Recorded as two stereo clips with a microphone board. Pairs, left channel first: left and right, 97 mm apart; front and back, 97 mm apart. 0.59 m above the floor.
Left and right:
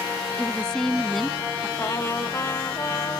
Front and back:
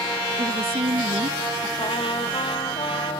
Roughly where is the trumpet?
Ahead left.